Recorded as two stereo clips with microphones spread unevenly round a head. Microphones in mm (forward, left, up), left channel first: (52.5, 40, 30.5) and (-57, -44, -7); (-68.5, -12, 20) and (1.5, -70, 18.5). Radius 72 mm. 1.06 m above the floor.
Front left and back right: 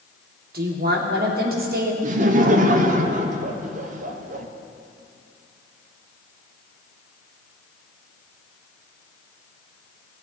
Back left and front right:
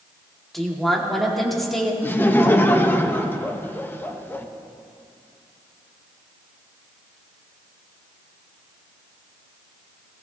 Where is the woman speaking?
130° right, 2.5 m.